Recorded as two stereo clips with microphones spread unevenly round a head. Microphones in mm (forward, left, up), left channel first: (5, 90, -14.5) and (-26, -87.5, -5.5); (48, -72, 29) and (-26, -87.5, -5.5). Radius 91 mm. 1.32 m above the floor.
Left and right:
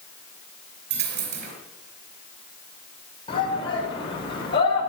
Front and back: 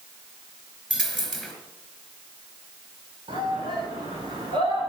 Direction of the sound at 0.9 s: 70° right.